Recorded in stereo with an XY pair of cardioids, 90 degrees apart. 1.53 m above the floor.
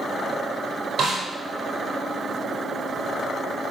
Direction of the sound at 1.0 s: 70° right.